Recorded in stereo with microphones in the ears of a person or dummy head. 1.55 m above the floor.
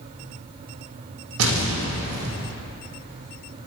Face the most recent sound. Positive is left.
turn(degrees=-80)